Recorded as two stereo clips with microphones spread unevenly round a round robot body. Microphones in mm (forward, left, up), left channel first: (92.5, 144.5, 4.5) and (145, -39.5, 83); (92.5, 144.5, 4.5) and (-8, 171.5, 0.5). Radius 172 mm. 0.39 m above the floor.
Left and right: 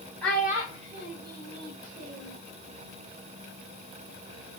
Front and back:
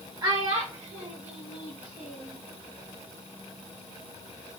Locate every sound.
0.2 s a child speaking: 145° left, 0.7 m; by 2.4 s 110° right, 1.4 m